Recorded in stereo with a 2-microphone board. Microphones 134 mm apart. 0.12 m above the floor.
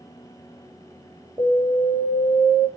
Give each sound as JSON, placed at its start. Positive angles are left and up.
{"t": 1.4, "sound": "an alarm", "side_deg": -25, "distance_m": 6.0}